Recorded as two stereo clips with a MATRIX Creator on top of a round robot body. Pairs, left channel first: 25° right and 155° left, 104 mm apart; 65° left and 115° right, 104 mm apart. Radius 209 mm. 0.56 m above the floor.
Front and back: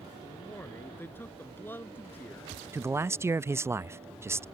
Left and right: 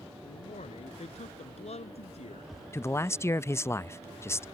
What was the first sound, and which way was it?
A man speaking, 50° left.